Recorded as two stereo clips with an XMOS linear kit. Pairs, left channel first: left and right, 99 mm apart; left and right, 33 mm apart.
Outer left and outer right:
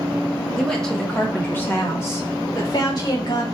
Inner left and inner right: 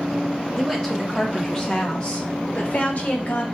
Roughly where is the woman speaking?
Centre.